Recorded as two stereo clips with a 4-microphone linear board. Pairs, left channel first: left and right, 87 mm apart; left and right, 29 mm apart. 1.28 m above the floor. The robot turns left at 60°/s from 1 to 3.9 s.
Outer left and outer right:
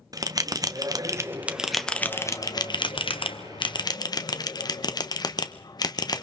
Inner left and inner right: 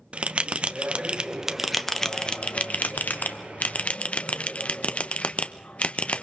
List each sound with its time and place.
0.1 s a bell: 45° right (ahead or behind), 1.0 m; by 6.2 s 50° left (ahead or behind), 1.0 m